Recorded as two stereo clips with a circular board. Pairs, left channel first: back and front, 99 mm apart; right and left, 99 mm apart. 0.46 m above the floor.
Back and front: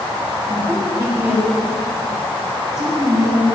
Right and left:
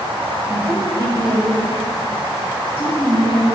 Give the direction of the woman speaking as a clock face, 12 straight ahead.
11 o'clock.